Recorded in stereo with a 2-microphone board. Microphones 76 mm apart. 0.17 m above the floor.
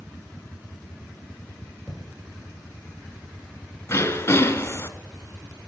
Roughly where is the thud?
Centre.